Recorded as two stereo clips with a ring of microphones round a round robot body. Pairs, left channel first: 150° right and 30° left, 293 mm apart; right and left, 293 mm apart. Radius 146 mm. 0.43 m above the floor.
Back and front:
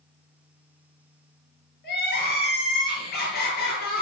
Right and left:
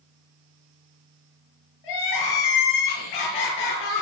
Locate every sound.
1.8 s crying: 90° right, 6 m